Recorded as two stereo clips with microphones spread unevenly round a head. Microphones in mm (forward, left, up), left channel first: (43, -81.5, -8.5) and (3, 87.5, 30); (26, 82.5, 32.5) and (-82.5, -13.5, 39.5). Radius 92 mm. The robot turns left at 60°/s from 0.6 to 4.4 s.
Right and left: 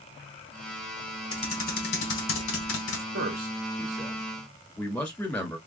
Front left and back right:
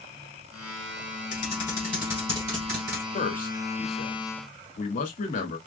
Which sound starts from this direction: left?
A man speaking, at 3.1 s.